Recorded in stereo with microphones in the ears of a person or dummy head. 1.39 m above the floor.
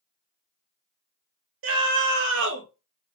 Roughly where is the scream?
Right.